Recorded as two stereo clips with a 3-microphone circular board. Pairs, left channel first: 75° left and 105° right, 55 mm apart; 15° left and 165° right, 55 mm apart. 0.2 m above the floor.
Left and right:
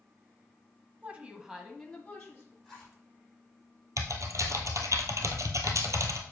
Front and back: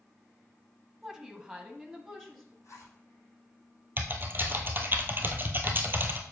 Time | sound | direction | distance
1.0 | a woman speaking | 95° right | 1.1 m
2.6 | a zipper | 20° right | 5 m
4.0 | typing on a keyboard | 115° right | 1.3 m